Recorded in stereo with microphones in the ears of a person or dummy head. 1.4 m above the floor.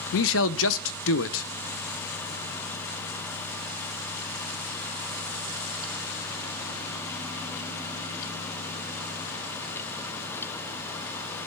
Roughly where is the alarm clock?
I don't hear an alarm clock.